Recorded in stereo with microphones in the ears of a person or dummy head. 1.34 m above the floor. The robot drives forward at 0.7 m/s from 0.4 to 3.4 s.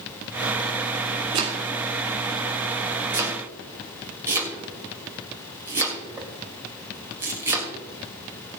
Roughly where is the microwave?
I don't hear a microwave.